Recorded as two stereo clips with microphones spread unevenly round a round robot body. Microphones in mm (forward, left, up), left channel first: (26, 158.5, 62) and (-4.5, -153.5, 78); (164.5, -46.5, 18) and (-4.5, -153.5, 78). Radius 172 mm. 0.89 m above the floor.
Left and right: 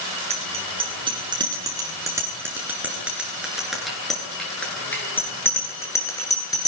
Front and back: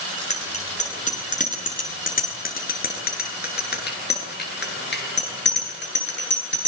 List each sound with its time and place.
0.3 s a bicycle bell: 25° right, 9 m; by 6.7 s 5° left, 12 m